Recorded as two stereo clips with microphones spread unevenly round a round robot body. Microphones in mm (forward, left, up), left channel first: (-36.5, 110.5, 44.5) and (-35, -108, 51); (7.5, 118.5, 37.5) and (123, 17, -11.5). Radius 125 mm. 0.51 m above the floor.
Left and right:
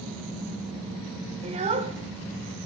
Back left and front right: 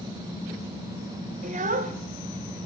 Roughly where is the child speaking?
Ahead right.